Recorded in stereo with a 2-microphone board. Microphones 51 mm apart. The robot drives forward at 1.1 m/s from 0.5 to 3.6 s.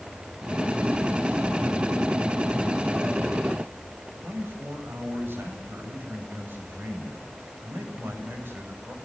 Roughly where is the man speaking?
Right.